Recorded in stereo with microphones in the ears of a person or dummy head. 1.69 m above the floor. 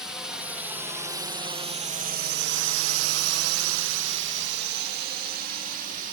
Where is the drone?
Centre (ahead or behind); by 6.1 s 45° right (ahead or behind).